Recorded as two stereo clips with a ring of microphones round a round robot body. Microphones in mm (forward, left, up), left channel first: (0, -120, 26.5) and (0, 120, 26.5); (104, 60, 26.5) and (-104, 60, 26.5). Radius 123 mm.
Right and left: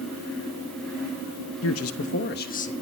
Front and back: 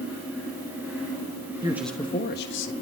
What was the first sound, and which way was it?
A man speaking, 110° right.